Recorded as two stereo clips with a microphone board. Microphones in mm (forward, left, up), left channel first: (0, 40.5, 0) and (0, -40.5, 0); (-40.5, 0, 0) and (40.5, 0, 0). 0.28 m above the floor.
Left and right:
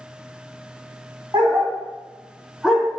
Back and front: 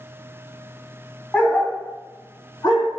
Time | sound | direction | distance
1.3 | a dog barking | 105° right | 0.9 m